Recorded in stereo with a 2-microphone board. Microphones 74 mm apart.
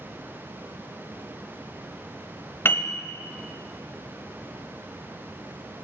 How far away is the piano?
About 0.8 m.